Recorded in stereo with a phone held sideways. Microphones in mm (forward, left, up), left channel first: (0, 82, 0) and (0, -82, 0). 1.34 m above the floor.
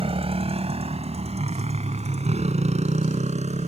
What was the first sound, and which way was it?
A motorcycle, 35° right (ahead or behind).